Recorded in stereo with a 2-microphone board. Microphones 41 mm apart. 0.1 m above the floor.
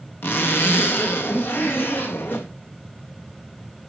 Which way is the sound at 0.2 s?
70° left (ahead or behind).